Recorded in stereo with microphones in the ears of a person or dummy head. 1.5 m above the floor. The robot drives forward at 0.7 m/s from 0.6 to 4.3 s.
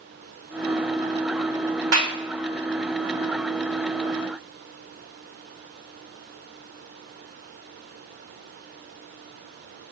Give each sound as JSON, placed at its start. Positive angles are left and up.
{"t": 1.9, "sound": "a clap", "side_deg": -85, "distance_m": 3.0}